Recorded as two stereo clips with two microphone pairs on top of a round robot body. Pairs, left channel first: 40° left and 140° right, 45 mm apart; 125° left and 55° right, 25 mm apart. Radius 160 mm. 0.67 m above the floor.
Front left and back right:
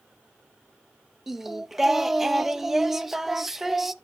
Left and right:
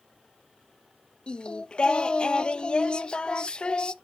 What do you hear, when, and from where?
1.3 s singing: 150° left, 0.7 m